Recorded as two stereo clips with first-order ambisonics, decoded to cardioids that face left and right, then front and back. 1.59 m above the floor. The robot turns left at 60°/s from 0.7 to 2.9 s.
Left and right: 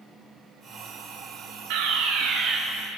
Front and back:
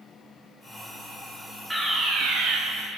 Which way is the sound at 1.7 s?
95° right.